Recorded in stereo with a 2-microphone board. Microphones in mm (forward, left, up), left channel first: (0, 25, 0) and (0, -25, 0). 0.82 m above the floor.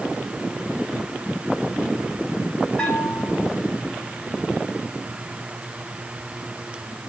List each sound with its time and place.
2.8 s a bell: 20° left (ahead or behind), 3.5 m